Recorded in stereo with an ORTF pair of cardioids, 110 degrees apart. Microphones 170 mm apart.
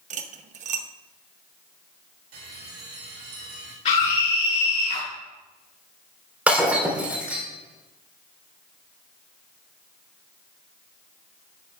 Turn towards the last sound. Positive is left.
turn(degrees=-10)